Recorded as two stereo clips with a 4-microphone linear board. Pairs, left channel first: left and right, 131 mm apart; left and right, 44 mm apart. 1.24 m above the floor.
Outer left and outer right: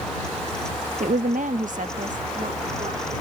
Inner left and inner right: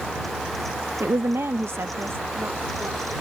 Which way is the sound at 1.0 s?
75° right (ahead or behind).